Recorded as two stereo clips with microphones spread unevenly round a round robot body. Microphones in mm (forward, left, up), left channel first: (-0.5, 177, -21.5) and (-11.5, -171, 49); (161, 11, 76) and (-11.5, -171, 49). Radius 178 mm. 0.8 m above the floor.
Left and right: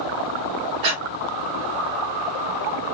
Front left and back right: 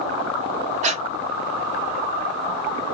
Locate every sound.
0.8 s breathing: 70° right, 1.1 m